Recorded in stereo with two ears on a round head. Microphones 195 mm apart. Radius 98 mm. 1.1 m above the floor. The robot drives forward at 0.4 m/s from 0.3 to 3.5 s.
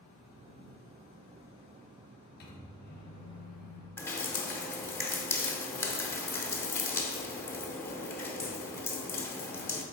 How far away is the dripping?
About 0.8 m.